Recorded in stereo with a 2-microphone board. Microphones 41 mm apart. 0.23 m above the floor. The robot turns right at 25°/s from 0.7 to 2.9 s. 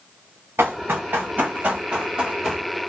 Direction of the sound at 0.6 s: 80° right.